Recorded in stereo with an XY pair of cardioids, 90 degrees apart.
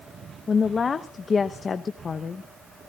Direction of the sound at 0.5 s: 45° left.